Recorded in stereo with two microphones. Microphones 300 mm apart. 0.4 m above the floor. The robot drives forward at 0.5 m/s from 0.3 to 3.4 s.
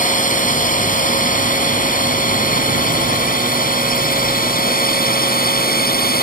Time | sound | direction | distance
0.0 | a drone | 25° left (ahead or behind) | ?